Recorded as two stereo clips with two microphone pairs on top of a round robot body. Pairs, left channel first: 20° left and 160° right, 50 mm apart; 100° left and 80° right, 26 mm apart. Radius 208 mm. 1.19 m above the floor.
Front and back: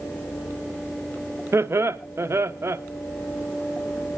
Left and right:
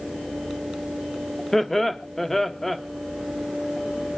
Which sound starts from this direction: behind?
Laughter, at 1.5 s.